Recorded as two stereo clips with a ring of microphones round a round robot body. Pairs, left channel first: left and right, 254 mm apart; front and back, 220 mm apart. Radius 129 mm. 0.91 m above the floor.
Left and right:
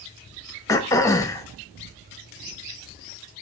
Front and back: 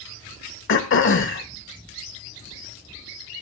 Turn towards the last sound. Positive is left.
turn(degrees=15)